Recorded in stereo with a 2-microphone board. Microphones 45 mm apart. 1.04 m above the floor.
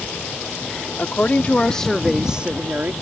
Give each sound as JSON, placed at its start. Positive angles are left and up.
{"t": 1.0, "sound": "a woman speaking", "side_deg": 45}